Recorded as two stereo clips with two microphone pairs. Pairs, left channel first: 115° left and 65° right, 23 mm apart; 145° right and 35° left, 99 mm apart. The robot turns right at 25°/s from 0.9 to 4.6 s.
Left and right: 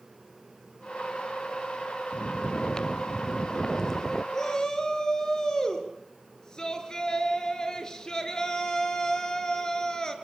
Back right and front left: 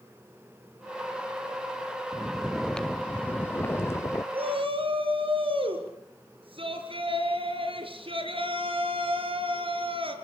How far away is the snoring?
About 0.5 m.